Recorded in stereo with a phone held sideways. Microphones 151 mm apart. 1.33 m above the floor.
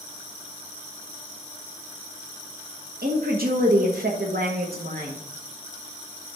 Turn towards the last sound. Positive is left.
turn(degrees=-80)